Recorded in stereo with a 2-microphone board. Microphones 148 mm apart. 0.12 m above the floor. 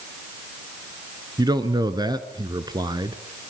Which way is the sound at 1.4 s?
30° right (ahead or behind).